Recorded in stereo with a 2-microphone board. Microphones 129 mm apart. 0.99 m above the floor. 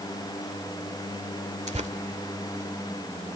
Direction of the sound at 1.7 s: 60° right (ahead or behind).